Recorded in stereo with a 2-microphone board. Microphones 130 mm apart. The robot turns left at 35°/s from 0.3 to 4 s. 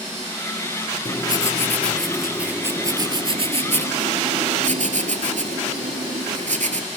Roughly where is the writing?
Ahead left.